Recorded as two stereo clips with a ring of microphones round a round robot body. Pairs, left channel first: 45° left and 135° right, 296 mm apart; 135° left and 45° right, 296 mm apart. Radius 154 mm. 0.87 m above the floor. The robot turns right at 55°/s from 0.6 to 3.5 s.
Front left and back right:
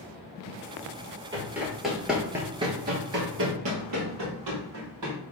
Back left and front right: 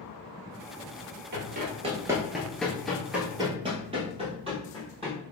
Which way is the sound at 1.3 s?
65° right.